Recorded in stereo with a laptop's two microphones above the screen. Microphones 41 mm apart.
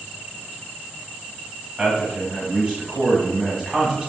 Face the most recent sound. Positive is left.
turn(degrees=-10)  # may be behind; listen again after turning